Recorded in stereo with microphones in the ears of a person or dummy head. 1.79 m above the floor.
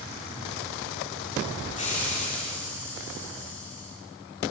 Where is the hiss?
35° left (ahead or behind), 4.5 m.